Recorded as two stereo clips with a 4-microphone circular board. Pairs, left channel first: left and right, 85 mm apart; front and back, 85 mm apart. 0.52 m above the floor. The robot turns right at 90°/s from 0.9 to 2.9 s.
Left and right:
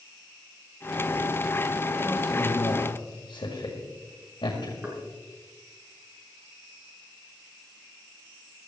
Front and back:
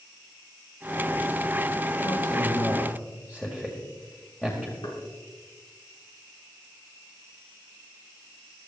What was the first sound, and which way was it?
A man speaking, straight ahead.